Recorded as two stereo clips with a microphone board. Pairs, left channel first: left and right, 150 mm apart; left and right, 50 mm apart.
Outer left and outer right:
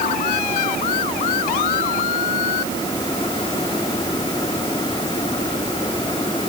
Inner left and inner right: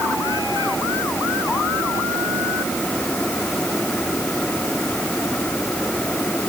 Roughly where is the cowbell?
No cowbell in this recording.